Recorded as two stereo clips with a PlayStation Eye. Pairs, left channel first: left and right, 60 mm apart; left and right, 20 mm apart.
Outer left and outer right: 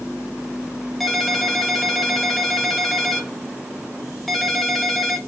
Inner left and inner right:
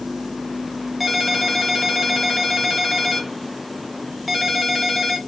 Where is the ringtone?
Centre (ahead or behind), 0.7 m.